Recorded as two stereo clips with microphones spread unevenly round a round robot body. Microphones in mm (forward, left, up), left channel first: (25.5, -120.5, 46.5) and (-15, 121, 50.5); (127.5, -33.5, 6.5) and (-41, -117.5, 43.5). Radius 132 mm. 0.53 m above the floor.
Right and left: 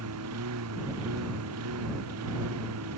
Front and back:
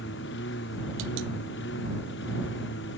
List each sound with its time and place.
0.0 s a lawn mower: 70° left